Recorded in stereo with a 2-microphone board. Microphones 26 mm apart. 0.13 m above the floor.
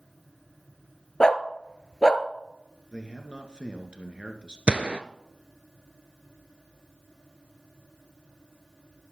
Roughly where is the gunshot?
Right.